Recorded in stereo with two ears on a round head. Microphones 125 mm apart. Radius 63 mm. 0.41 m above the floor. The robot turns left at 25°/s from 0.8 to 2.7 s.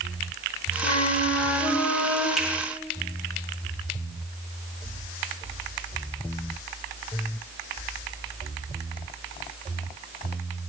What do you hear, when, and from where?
0.8 s a flute: 45° left, 0.9 m; by 2.3 s 10° left, 0.9 m
2.4 s a finger snap: 5° right (ahead or behind), 1.6 m